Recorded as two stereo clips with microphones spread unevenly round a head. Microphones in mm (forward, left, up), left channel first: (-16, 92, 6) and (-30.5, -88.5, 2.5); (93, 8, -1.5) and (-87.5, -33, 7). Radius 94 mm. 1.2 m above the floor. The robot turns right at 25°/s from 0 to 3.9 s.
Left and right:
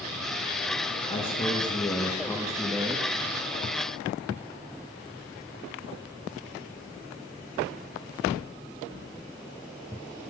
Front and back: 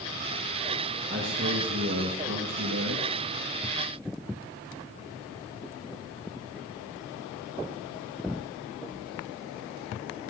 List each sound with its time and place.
1.1 s a man speaking: 140° left, 1.5 m; by 3.2 s 165° right, 1.5 m